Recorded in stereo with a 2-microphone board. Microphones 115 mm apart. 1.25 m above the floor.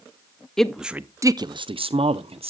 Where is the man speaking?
5° left (ahead or behind), 0.7 m; by 2.5 s 55° right (ahead or behind), 0.9 m.